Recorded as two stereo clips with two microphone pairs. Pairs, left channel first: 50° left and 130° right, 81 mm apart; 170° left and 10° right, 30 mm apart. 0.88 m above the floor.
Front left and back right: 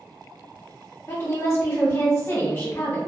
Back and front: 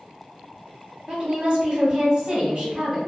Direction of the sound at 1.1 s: 15° left.